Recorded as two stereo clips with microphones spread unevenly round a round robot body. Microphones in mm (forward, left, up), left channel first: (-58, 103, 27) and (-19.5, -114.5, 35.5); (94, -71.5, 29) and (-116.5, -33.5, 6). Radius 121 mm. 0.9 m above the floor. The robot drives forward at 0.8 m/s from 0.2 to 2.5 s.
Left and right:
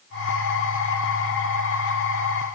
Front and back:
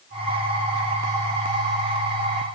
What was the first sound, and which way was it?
Only background noise.